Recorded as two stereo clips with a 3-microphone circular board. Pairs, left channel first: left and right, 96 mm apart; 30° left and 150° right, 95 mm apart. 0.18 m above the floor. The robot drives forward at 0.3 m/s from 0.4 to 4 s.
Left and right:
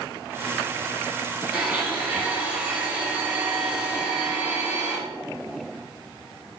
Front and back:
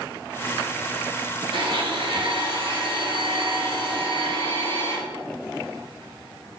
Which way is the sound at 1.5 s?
155° right.